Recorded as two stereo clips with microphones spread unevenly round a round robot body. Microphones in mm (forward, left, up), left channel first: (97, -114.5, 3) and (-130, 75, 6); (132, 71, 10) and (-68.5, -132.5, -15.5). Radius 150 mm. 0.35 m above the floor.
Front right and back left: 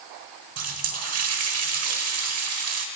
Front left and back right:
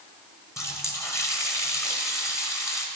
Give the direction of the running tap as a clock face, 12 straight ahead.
8 o'clock.